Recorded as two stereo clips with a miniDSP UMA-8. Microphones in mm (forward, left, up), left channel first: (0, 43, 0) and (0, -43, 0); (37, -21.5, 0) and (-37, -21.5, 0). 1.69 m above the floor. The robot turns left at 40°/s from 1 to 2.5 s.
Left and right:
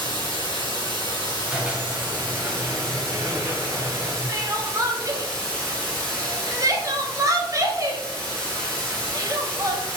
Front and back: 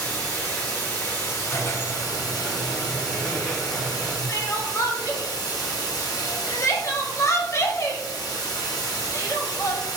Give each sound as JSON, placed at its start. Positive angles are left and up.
{"t": 0.0, "sound": "running water", "azimuth_deg": 70, "distance_m": 1.8}
{"t": 1.5, "sound": "a squeak", "azimuth_deg": -15, "distance_m": 0.7}
{"t": 4.3, "sound": "crying", "azimuth_deg": -45, "distance_m": 0.7}